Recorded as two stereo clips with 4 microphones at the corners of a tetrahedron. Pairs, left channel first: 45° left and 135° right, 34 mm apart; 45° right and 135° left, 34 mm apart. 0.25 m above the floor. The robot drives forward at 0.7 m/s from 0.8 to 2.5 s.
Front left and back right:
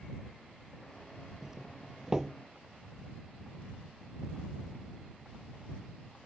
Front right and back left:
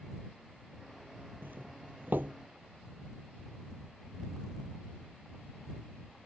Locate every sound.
1.4 s a doorbell: 155° left